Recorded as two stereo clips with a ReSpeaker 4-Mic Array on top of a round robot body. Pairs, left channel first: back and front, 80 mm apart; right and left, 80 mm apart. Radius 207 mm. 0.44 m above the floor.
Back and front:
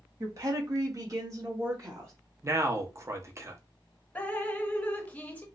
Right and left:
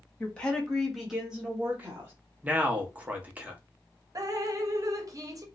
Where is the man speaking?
30° left, 1.0 m.